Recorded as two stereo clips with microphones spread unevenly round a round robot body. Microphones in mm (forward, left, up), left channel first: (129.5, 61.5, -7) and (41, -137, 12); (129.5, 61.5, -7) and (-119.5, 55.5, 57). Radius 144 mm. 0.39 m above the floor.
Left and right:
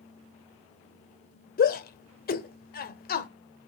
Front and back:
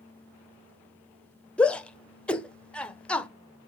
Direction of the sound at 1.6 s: 70° left.